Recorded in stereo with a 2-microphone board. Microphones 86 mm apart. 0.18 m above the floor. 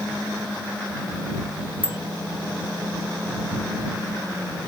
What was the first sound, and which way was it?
A bicycle bell, 25° right (ahead or behind).